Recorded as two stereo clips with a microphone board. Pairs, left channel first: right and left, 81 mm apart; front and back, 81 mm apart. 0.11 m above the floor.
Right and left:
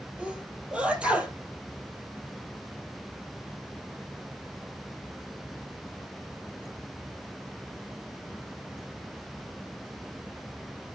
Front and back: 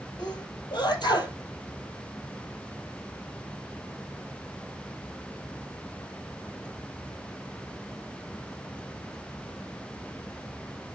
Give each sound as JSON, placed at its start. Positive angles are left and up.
{"t": 0.2, "sound": "a sneeze", "azimuth_deg": 15, "distance_m": 3.0}